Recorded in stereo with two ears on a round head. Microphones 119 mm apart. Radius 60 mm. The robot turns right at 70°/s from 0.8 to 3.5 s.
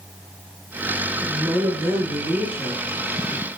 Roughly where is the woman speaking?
Right.